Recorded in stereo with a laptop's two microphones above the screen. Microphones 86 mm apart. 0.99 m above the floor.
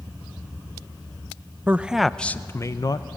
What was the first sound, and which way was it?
A man speaking, 20° right (ahead or behind).